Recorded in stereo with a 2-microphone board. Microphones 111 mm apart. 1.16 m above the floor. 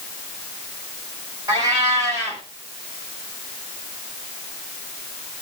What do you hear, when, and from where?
1.5 s a cat meowing: 35° right (ahead or behind), 3.5 m